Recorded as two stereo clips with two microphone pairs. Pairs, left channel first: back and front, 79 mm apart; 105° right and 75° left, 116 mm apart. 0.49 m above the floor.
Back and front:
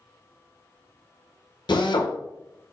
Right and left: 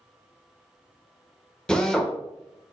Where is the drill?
175° left, 0.7 m.